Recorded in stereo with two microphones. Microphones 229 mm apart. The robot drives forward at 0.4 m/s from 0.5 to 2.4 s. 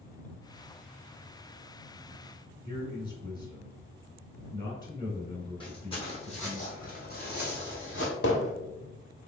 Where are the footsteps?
20° left (ahead or behind), 2.0 m; by 8.1 s 65° left (ahead or behind), 1.4 m.